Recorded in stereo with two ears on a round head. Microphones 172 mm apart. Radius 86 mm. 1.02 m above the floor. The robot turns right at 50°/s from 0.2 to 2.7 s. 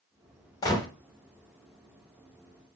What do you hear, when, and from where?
0.6 s a gunshot: 20° left (ahead or behind), 0.7 m